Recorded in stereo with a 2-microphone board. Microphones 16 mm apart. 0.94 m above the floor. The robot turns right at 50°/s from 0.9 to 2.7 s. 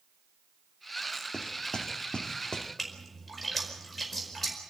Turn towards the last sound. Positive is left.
turn(degrees=10)  # may be behind; listen again after turning